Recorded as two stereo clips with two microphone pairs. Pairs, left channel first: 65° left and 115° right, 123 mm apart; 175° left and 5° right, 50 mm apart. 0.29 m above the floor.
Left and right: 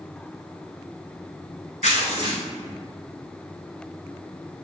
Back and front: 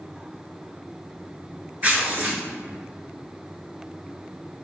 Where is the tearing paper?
55° left, 1.3 m.